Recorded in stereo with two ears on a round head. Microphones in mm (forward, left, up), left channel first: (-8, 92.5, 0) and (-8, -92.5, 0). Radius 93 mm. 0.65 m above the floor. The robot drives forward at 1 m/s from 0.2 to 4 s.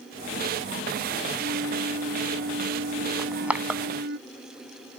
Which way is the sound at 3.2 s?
5° right (ahead or behind).